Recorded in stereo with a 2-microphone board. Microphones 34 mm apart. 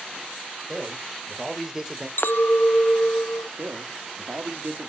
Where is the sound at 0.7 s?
15° right (ahead or behind), 4 m.